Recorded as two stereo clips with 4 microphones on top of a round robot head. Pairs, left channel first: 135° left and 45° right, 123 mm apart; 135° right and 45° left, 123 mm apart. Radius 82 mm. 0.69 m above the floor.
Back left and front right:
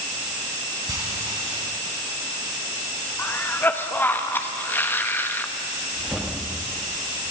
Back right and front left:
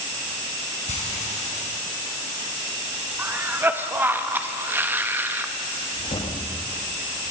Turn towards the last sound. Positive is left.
turn(degrees=-130)